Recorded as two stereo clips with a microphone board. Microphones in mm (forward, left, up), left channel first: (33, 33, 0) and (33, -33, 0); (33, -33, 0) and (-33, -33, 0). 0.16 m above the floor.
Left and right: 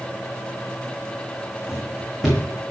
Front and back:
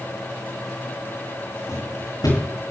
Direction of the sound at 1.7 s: Straight ahead.